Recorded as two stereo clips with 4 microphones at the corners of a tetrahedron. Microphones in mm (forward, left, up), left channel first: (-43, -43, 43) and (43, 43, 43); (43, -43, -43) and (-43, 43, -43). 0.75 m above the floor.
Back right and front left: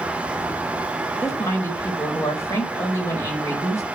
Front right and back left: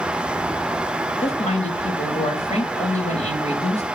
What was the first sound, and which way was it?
A woman speaking, 70° right.